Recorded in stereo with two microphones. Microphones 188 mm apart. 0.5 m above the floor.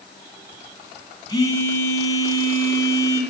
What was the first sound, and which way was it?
A phone buzzing, 20° left (ahead or behind).